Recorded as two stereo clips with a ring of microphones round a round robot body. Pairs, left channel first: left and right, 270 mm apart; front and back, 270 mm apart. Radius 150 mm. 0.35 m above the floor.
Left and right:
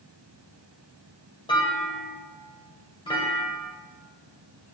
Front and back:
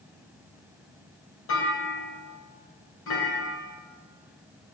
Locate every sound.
1.5 s a clunk: 20° left, 2 m